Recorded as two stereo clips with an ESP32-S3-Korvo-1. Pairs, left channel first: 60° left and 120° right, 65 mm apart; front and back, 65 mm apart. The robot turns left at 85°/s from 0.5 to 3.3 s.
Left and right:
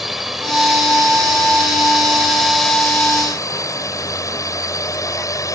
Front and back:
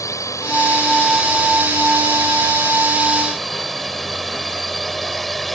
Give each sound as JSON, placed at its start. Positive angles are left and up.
{"t": 0.0, "sound": "a drone", "azimuth_deg": -35}